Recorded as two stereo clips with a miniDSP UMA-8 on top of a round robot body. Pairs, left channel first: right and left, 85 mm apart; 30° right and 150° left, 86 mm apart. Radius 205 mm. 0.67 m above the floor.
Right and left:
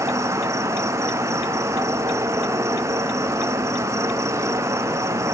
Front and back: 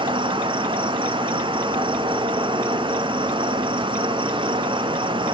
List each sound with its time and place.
0.0 s an insect: 140° left, 1.1 m